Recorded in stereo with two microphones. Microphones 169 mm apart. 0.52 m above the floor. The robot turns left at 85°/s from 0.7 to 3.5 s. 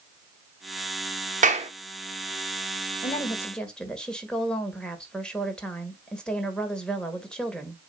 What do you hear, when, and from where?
1.4 s a clap: 50° right (ahead or behind), 1.0 m; by 1.7 s 35° right (ahead or behind), 1.0 m
3.0 s a woman speaking: 45° left, 1.6 m; by 7.8 s 5° left, 1.6 m